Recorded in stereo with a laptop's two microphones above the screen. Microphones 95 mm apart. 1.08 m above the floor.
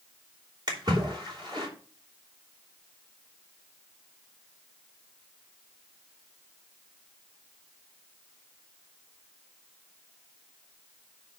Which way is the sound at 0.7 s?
45° right (ahead or behind).